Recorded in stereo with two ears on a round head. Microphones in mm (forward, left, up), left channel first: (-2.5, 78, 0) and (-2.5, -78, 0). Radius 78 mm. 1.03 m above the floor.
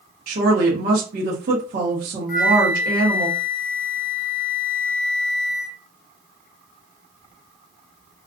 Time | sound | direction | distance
0.3 | a woman speaking | 55° right (ahead or behind) | 1.1 m
2.3 | a flute | 50° left (ahead or behind) | 0.6 m